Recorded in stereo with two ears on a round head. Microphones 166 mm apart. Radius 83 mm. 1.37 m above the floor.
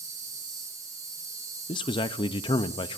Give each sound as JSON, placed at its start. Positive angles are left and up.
{"t": 0.0, "sound": "an insect", "side_deg": -20, "distance_m": 6.5}
{"t": 1.7, "sound": "a man speaking", "side_deg": 25, "distance_m": 0.5}